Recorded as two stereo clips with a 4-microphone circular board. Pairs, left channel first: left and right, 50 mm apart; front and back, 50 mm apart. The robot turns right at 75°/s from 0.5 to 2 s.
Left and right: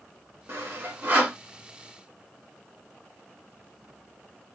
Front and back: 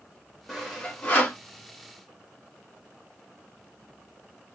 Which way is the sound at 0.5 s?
90° right.